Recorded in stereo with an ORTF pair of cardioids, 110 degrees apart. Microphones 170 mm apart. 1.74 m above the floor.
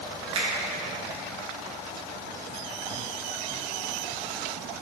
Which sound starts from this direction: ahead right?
A finger snap, at 0.3 s.